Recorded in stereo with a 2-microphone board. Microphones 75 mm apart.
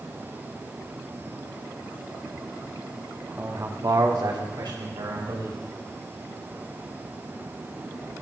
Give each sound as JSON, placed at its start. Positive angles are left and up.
{"t": 3.4, "sound": "a man speaking", "side_deg": -30, "distance_m": 1.2}